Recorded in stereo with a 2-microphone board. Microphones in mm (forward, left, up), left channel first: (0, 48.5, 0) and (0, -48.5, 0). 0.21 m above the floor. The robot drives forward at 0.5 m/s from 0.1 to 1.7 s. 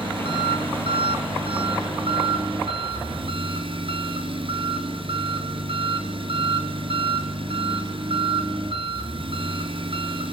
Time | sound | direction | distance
0.0 | an engine running | 65° right (ahead or behind) | 2.5 m